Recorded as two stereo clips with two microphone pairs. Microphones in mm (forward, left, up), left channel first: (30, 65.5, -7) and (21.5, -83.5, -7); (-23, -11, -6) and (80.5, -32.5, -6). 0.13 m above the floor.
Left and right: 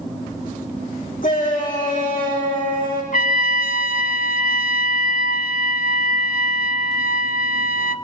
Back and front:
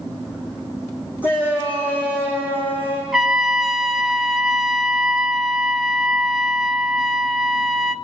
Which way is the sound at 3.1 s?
70° left.